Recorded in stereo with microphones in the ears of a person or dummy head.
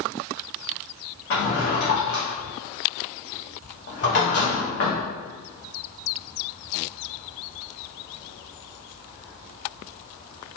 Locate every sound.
1.3 s a drawer: 45° left (ahead or behind), 0.6 m